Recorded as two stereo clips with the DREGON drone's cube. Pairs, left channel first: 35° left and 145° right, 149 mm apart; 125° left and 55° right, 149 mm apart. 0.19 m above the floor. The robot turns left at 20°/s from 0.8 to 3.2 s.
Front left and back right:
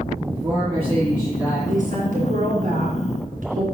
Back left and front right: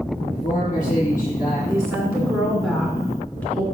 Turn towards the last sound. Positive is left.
turn(degrees=-160)